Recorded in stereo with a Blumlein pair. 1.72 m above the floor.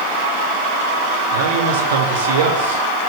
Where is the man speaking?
60° right, 4.5 m.